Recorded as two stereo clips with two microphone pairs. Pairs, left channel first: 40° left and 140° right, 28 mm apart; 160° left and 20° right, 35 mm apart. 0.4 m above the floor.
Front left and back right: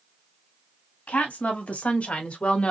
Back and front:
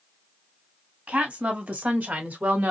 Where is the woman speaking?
20° left, 2.5 m; by 2.7 s straight ahead, 1.4 m.